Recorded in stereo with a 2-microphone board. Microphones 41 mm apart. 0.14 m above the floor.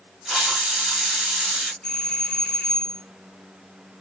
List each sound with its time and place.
0.2 s a hiss: 15° right (ahead or behind), 1.4 m
1.8 s a doorbell: 20° left (ahead or behind), 2.0 m